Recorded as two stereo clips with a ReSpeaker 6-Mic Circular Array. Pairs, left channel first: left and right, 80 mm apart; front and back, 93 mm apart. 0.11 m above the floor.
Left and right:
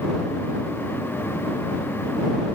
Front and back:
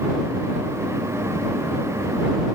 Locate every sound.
Only background noise.